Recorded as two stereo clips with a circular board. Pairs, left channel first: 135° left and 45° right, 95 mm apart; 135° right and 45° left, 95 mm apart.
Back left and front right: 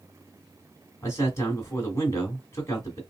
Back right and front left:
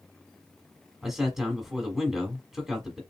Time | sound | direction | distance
1.0 | a man speaking | 130° left | 1.3 m